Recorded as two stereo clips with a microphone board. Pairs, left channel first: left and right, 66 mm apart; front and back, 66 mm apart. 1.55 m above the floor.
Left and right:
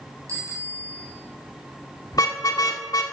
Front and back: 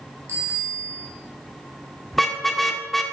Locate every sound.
0.3 s a bicycle bell: 130° right, 7.5 m
2.1 s a car horn: 85° left, 2 m